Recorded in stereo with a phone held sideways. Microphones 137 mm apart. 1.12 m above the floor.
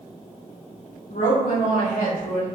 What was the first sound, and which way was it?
A woman speaking, 65° left (ahead or behind).